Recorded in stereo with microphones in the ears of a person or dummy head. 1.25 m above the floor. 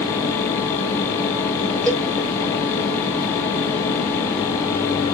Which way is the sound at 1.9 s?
5° left (ahead or behind).